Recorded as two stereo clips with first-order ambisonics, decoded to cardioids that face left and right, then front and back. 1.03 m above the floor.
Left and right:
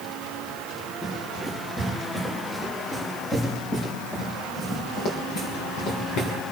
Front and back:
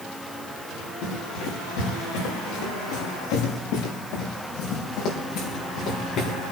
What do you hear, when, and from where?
1.0 s running footsteps: 5° left, 8 m; by 6.4 s 55° left, 5 m